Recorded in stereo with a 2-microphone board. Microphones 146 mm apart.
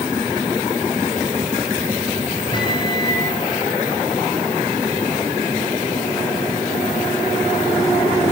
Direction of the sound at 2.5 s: 30° left (ahead or behind).